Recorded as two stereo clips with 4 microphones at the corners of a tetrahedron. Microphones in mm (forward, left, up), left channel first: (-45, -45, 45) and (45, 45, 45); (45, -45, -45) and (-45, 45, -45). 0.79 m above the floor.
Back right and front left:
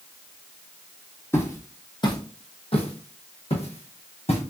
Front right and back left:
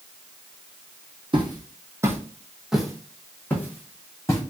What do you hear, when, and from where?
1.3 s footsteps: 165° left, 1.1 m; by 4.4 s 110° right, 1.8 m